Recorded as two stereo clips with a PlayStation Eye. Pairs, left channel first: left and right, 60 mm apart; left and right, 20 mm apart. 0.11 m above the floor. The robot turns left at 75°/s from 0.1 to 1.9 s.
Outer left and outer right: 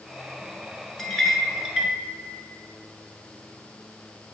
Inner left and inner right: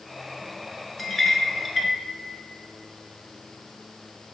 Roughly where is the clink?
Centre.